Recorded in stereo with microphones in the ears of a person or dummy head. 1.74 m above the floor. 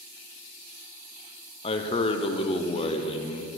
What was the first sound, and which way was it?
A man speaking, 30° left (ahead or behind).